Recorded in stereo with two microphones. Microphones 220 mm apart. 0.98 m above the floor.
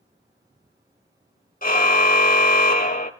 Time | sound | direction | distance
1.6 | a car horn | 40° left (ahead or behind) | 2 m